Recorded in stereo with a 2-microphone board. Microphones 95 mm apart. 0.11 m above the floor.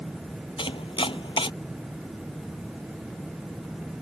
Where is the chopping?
70° left (ahead or behind).